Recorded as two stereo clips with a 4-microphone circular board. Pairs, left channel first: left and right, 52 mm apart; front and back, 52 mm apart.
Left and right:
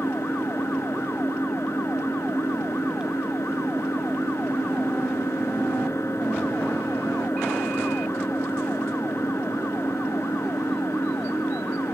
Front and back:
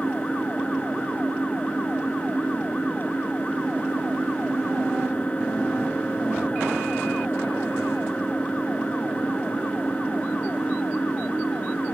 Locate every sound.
0.0 s an engine running: 65° left